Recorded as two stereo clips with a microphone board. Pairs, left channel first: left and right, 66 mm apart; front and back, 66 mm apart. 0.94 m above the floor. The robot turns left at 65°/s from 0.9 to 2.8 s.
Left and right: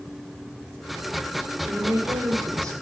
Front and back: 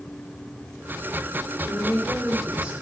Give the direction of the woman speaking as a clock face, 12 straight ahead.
1 o'clock.